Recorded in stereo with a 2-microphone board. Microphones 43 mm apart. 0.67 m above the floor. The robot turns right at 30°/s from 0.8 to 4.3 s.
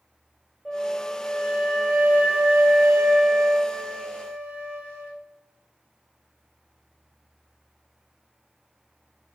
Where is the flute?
175° left, 0.8 m; by 5.1 s 80° right, 0.8 m.